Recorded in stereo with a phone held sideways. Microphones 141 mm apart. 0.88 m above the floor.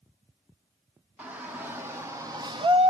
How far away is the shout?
About 1.5 m.